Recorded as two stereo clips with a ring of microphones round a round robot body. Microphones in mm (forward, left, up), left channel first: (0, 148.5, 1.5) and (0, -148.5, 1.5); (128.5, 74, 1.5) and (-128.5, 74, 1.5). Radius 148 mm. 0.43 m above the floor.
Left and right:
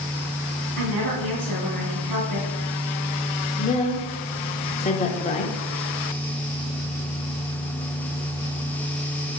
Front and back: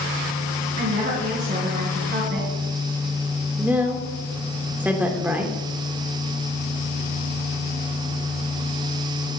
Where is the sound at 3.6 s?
105° left, 1.0 m.